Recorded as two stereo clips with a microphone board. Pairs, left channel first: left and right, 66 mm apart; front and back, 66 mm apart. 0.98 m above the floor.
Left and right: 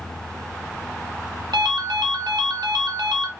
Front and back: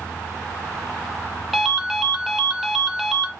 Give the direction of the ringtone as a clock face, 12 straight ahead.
3 o'clock.